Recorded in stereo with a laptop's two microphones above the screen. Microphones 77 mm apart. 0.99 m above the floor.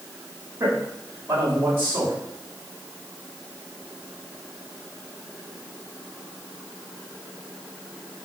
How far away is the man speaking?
About 4 m.